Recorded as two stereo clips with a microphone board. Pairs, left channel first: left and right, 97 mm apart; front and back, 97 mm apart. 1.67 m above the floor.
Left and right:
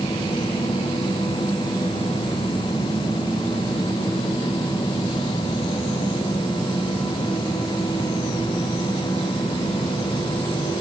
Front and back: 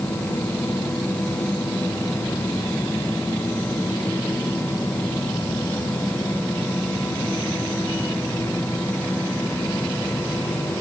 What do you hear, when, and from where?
Only background noise.